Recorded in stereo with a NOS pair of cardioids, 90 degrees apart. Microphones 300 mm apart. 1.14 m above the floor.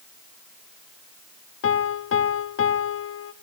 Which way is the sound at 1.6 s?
50° left.